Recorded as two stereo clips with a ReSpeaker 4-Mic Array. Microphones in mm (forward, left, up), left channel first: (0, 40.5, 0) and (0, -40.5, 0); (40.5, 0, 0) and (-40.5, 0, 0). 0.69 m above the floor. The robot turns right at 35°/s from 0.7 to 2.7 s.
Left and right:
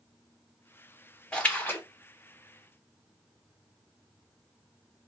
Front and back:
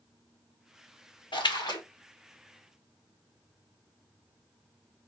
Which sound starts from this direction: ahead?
A splash, at 1.3 s.